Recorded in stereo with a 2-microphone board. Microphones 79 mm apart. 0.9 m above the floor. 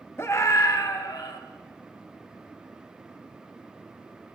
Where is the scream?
35° left (ahead or behind), 1.3 m; by 1.4 s 60° left (ahead or behind), 2 m.